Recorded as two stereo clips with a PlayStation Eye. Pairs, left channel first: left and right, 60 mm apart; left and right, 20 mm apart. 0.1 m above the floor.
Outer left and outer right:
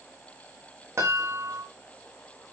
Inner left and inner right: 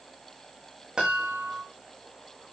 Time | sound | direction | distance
1.0 | a chime | 45° right (ahead or behind) | 6.5 m